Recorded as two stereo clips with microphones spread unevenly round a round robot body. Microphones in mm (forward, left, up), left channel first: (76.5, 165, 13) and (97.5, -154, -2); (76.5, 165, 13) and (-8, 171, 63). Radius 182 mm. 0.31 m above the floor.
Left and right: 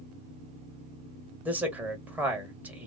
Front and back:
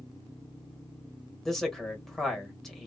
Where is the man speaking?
10° right, 1.2 m.